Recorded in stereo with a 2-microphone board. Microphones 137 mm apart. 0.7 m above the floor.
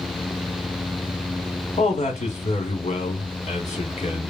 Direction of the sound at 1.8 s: 60° left (ahead or behind).